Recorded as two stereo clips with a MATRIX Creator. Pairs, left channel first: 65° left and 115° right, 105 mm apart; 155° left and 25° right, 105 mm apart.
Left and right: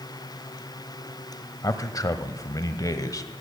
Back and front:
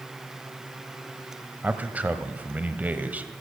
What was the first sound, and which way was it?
A man speaking, 45° left.